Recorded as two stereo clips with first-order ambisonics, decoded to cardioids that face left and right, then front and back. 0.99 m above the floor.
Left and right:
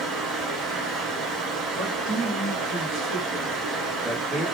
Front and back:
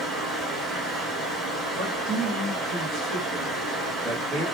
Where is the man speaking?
140° right, 1.5 m.